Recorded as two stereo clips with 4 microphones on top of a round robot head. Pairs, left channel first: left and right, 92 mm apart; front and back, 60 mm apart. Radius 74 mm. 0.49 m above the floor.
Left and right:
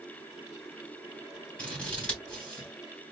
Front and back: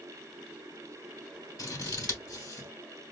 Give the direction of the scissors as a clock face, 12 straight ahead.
12 o'clock.